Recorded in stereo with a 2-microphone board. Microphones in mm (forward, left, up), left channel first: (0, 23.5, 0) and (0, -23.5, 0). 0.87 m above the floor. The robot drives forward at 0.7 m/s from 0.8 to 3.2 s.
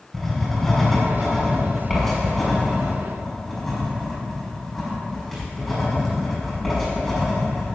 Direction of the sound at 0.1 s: 5° left (ahead or behind).